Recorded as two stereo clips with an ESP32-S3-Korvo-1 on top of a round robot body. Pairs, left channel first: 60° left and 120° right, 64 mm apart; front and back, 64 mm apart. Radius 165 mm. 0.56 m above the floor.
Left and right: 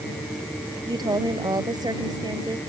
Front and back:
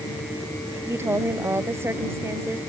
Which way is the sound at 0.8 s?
130° right.